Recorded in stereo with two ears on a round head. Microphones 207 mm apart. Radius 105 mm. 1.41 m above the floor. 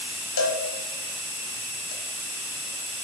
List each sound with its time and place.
0.4 s a cowbell: 70° left (ahead or behind), 0.9 m